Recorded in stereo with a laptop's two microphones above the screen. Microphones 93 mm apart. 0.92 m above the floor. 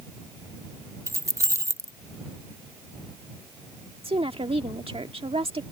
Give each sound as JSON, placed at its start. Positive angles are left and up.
{"t": 1.1, "sound": "keys jangling", "side_deg": -30}
{"t": 4.0, "sound": "a woman speaking", "side_deg": -80}